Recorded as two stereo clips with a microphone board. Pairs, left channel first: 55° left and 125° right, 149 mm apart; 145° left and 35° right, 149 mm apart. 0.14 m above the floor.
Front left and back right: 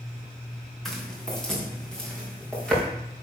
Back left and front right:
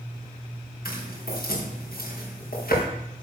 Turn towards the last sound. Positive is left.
turn(degrees=140)